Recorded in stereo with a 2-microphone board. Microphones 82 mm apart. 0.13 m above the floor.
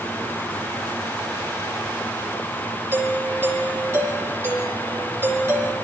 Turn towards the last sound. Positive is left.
turn(degrees=-30)  # may be behind; listen again after turning